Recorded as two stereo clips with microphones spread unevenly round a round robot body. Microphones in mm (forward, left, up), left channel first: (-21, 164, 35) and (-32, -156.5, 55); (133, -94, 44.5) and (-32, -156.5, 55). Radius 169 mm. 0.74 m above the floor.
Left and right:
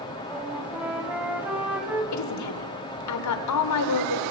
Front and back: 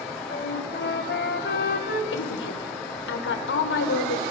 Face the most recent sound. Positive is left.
turn(degrees=50)